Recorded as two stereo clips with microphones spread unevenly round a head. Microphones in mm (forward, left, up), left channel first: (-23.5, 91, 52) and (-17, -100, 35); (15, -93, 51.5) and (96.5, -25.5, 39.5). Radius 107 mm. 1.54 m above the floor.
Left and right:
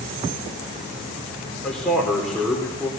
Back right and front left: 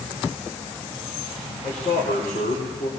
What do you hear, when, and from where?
1.6 s a man speaking: straight behind, 4 m